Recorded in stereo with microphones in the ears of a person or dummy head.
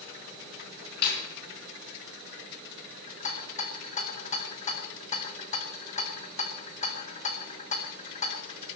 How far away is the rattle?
About 1.9 m.